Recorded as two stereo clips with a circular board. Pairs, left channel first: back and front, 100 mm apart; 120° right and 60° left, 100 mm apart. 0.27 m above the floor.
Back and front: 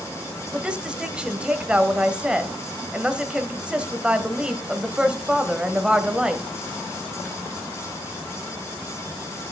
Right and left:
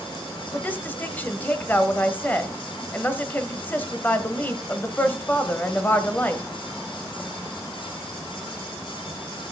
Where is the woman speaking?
70° right, 1.1 m.